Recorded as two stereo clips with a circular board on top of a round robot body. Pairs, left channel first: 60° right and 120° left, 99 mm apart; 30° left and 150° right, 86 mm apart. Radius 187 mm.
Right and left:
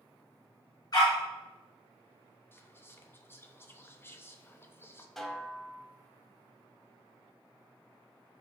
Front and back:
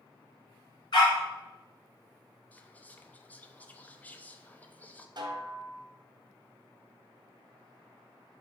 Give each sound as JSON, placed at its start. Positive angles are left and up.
{"t": 0.9, "sound": "a dog barking", "azimuth_deg": -5, "distance_m": 0.7}
{"t": 2.5, "sound": "whispering", "azimuth_deg": -25, "distance_m": 0.7}
{"t": 5.2, "sound": "a snare drum", "azimuth_deg": -145, "distance_m": 0.9}